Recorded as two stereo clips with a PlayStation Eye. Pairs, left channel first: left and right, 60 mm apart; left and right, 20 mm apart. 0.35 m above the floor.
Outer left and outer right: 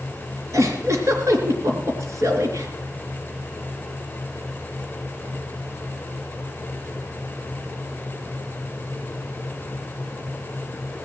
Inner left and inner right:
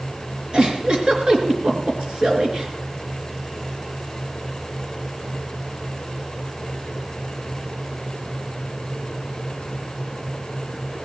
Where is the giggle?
50° right (ahead or behind), 3 m.